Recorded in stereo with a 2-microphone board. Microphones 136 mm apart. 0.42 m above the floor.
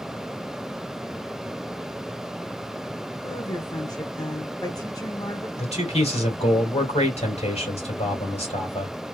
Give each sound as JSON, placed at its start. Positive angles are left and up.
{"t": 3.2, "sound": "a woman speaking", "side_deg": 25, "distance_m": 0.9}
{"t": 5.6, "sound": "a man speaking", "side_deg": 50, "distance_m": 2.5}